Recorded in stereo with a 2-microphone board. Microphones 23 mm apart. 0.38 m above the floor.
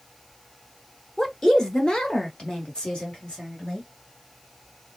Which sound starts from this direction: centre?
A woman speaking, at 1.2 s.